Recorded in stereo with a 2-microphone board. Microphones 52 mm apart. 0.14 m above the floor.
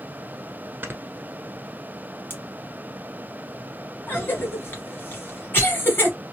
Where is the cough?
35° left (ahead or behind), 2 m.